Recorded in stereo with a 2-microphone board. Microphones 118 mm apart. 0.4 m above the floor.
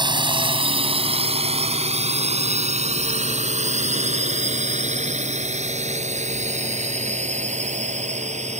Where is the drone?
40° right (ahead or behind); by 8.6 s 75° right (ahead or behind).